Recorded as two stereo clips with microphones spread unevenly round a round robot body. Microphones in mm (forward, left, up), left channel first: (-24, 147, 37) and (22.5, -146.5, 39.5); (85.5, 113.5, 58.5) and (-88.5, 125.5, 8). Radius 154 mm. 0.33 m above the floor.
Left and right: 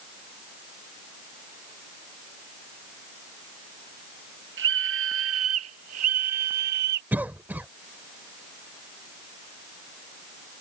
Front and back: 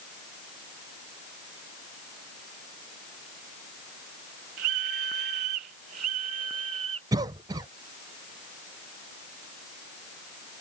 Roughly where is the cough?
Behind.